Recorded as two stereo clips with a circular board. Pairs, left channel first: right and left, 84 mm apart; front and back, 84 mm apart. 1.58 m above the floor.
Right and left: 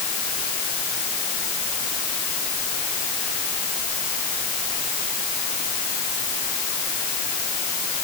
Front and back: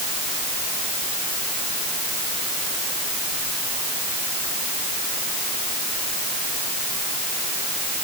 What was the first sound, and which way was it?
Only background noise.